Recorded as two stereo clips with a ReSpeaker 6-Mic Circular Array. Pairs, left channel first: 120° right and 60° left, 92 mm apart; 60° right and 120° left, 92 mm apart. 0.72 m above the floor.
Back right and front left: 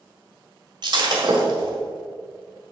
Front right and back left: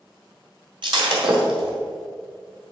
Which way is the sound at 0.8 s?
95° left.